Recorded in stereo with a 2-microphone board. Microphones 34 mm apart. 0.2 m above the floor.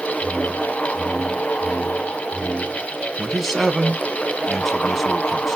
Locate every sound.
0.2 s a whoosh: 15° right (ahead or behind), 0.9 m
3.2 s a man speaking: 5° right (ahead or behind), 1.6 m